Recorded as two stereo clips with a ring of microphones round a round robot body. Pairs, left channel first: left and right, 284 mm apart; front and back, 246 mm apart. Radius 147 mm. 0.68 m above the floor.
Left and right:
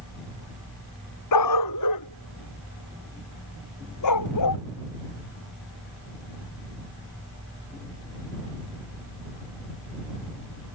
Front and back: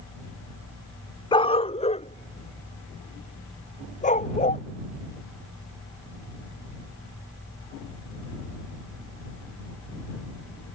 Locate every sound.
1.3 s a dog barking: 70° left; by 4.6 s 60° left